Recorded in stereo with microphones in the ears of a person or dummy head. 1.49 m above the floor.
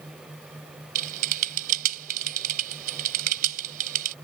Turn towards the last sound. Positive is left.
turn(degrees=-50)  # may be behind; listen again after turning